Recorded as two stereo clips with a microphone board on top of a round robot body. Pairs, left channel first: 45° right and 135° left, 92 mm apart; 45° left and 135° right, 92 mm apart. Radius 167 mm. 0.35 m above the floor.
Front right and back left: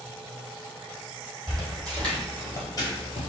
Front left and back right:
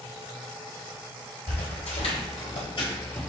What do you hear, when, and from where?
1.5 s footsteps: 40° left, 1.3 m; by 3.3 s 35° right, 0.5 m